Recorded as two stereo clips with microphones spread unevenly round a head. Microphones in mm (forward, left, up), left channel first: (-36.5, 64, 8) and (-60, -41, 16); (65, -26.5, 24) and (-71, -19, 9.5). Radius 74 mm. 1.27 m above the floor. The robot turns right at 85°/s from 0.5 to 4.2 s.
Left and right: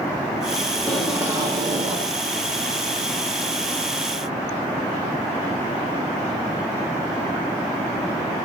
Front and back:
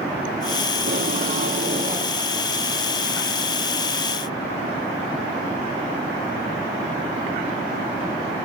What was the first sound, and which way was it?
Tape being pulled, 150° left.